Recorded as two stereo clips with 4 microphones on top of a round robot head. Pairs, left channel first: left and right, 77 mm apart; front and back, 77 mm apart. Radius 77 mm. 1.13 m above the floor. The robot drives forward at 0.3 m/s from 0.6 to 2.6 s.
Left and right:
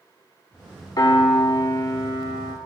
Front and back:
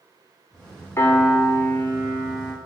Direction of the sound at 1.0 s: 55° left.